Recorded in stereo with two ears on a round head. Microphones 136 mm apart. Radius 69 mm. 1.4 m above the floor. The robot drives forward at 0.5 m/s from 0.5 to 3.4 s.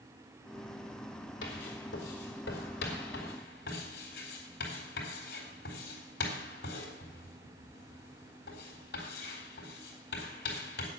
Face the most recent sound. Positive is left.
turn(degrees=80)